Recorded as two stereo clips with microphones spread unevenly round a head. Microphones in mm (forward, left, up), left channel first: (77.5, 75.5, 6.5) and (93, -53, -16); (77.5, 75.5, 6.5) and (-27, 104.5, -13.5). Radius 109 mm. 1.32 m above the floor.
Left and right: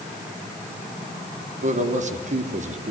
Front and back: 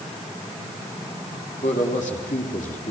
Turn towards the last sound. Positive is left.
turn(degrees=-60)